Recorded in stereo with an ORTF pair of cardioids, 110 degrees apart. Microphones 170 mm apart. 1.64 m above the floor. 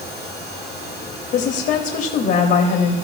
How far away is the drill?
I don't hear a drill.